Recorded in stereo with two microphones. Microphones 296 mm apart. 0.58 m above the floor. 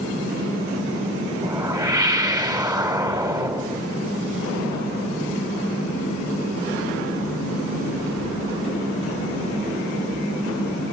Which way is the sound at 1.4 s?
15° right (ahead or behind).